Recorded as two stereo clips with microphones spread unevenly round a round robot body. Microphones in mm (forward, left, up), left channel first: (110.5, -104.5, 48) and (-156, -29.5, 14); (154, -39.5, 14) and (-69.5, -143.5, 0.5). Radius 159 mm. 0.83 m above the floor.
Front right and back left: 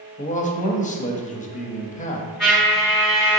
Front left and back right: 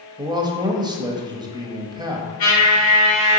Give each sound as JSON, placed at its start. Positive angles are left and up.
{"t": 0.2, "sound": "a man speaking", "azimuth_deg": -85, "distance_m": 0.7}
{"t": 2.4, "sound": "a trumpet", "azimuth_deg": 75, "distance_m": 1.6}